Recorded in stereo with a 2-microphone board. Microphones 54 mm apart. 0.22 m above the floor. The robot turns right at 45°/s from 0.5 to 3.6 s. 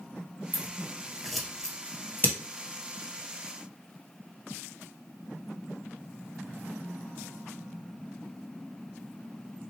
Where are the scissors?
40° right (ahead or behind), 1.5 m; by 2.4 s 45° left (ahead or behind), 1.5 m.